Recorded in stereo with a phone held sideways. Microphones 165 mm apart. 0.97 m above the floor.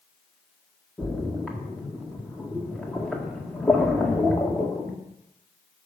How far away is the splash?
About 1.7 m.